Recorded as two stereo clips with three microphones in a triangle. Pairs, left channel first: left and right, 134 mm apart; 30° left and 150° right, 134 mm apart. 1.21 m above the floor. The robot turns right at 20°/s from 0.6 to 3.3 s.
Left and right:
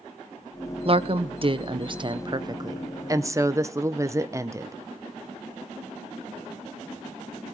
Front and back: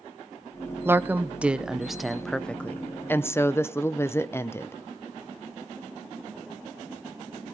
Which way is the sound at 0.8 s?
85° right.